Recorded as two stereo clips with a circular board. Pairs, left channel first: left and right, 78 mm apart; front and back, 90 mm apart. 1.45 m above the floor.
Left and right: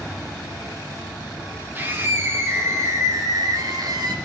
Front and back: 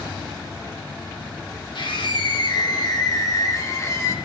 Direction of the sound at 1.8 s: 25° right.